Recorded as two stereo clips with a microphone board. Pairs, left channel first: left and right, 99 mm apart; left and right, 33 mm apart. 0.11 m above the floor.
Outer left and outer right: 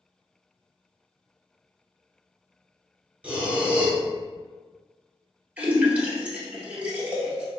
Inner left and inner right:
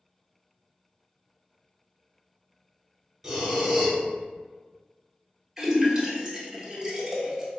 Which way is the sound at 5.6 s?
15° right (ahead or behind).